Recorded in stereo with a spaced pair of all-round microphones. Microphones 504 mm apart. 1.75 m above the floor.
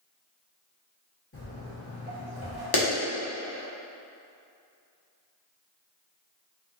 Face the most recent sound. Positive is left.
turn(degrees=45)  # may be behind; listen again after turning